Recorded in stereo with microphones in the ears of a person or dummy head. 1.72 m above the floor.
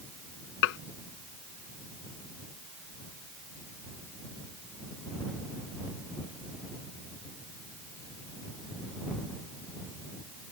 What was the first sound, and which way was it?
Dishes clattering, 70° left (ahead or behind).